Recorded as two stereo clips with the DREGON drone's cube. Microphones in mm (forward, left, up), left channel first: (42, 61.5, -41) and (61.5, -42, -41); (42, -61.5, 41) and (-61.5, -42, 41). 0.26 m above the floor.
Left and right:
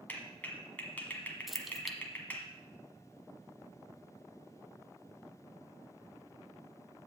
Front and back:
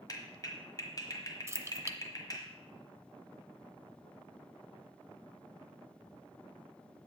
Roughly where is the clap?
Ahead left.